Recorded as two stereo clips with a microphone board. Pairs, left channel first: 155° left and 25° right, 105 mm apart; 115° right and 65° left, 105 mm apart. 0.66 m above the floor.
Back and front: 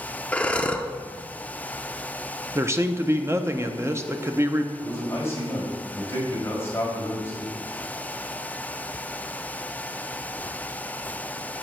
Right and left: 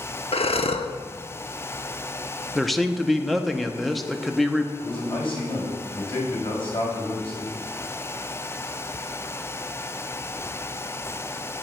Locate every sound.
0.3 s breathing: 125° right, 0.6 m
2.5 s a man speaking: 25° right, 0.7 m
4.8 s a man speaking: 135° right, 4 m